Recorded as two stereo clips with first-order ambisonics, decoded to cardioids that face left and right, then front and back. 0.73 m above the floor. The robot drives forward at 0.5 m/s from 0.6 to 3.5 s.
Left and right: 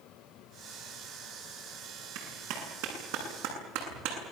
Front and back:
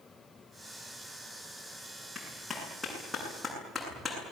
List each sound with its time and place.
2.1 s a clap: 80° right, 8.5 m; by 4.3 s 85° right, 8.5 m